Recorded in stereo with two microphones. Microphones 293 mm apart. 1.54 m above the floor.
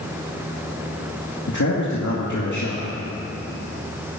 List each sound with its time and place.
1.5 s a man speaking: 80° left, 2.5 m